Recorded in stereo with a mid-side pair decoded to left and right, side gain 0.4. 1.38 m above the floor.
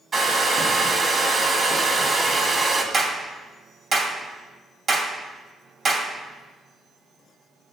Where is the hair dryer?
40° right, 1.8 m.